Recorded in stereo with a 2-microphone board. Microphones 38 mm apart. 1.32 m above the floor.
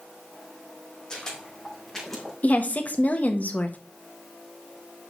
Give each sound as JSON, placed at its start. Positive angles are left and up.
{"t": 1.1, "sound": "footsteps", "side_deg": 20, "distance_m": 3.5}
{"t": 2.4, "sound": "a woman speaking", "side_deg": 45, "distance_m": 1.2}